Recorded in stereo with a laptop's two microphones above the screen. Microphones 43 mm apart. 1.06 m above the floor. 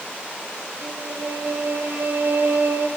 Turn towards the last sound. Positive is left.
turn(degrees=-70)  # may be behind; listen again after turning